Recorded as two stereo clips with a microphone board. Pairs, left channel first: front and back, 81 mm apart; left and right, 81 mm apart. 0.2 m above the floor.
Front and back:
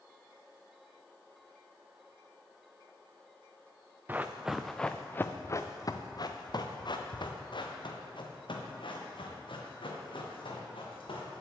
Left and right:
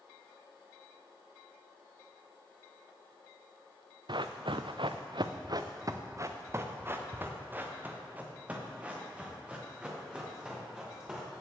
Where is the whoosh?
I don't hear a whoosh.